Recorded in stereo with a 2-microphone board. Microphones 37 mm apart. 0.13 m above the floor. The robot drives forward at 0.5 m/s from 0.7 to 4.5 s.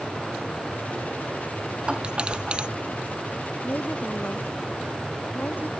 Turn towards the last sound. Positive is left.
turn(degrees=50)  # may be behind; listen again after turning